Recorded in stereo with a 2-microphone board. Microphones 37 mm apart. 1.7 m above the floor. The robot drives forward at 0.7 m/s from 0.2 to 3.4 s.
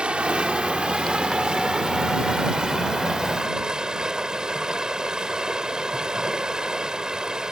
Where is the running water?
30° right (ahead or behind); by 7.5 s 20° right (ahead or behind).